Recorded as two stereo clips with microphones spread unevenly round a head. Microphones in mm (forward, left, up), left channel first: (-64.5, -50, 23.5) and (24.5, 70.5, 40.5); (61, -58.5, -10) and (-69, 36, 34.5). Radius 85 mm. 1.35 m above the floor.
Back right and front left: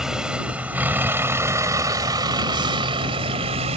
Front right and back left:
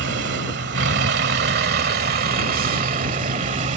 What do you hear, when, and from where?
0.0 s a vehicle: 140° left; by 3.8 s 100° left